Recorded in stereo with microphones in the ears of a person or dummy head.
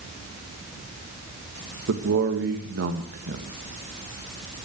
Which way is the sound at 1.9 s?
65° right (ahead or behind).